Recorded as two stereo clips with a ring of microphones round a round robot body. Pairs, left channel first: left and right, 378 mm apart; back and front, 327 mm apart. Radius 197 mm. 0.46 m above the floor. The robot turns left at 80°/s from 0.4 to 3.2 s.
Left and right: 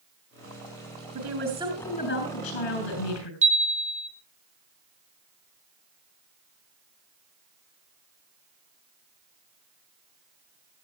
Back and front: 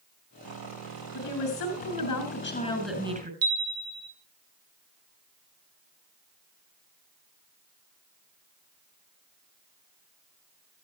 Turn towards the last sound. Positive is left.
turn(degrees=-20)